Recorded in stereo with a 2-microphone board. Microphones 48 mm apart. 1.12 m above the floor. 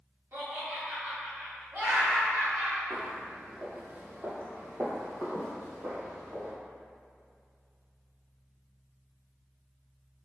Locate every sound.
0.3 s laughter: 50° right (ahead or behind), 1.5 m
2.9 s footsteps: 25° right (ahead or behind), 1.3 m; by 6.5 s 65° right (ahead or behind), 2.5 m